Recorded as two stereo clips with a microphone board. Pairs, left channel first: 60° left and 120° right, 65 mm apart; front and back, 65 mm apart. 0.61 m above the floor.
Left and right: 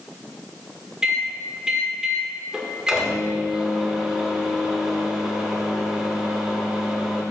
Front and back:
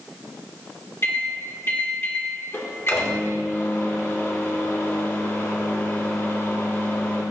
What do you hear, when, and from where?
1.0 s a microwave: 40° right, 1.5 m